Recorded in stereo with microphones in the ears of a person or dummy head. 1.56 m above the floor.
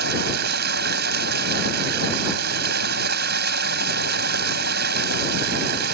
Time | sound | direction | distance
0.0 | running water | 65° right (ahead or behind) | ?